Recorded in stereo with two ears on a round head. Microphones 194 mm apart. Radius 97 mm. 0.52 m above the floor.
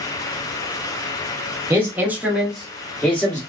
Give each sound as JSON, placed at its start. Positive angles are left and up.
{"t": 1.7, "sound": "a man speaking", "side_deg": -10, "distance_m": 0.9}